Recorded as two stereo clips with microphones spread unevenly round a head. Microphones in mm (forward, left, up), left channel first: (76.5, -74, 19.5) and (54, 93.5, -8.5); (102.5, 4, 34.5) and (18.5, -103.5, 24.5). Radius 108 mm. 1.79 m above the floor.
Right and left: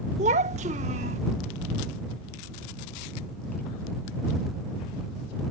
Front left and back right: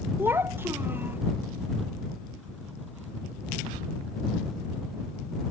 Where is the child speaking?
150° left.